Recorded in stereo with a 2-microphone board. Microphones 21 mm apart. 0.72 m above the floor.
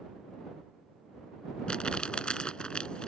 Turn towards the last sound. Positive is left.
turn(degrees=45)  # may be behind; listen again after turning